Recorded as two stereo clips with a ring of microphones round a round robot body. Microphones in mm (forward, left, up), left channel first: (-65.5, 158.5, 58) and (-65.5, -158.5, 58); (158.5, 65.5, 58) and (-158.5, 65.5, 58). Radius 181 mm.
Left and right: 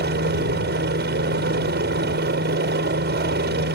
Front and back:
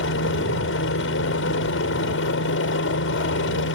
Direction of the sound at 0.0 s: 40° right.